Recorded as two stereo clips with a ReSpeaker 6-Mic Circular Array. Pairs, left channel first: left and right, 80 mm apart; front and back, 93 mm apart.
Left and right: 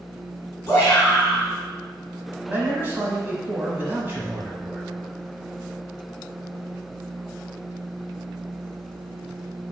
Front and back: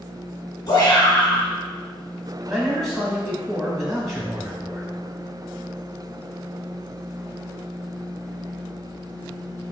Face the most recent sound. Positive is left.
turn(degrees=-90)